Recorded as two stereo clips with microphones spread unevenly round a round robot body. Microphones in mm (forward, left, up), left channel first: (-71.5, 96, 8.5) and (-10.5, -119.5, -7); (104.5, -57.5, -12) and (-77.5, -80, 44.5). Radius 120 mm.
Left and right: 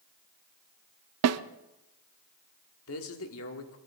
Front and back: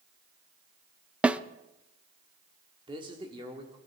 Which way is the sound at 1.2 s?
80° right.